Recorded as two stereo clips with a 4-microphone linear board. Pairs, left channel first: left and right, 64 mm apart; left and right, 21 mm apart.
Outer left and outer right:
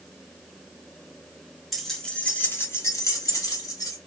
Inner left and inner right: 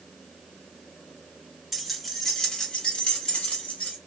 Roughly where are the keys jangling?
Centre.